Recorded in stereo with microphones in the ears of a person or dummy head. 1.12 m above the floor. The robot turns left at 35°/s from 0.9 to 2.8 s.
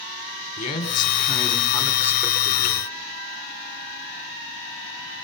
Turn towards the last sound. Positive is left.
turn(degrees=-15)